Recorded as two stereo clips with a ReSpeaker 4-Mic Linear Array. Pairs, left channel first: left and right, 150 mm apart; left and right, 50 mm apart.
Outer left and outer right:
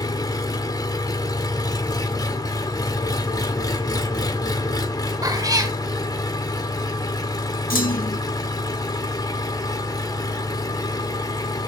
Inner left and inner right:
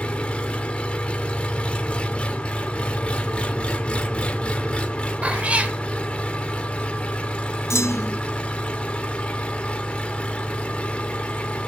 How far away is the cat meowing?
About 1.2 m.